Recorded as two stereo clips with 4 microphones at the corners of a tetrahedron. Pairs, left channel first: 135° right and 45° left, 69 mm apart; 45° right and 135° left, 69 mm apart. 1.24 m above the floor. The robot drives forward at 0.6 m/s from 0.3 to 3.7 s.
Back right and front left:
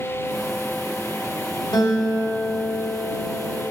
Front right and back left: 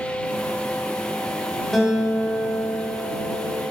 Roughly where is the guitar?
Behind right.